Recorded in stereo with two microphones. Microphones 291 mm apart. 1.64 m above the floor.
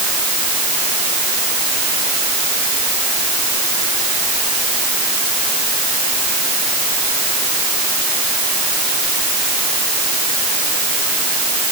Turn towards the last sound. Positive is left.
No sound to turn to.